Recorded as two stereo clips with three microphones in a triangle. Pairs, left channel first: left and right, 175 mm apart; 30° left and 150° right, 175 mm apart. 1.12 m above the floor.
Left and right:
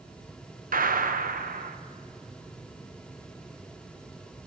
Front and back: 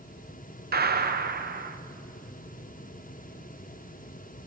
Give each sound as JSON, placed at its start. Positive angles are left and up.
{"t": 0.7, "sound": "a gunshot", "azimuth_deg": -125, "distance_m": 0.6}